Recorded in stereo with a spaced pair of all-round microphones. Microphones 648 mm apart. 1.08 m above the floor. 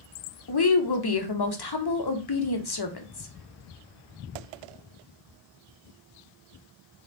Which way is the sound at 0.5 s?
40° left (ahead or behind).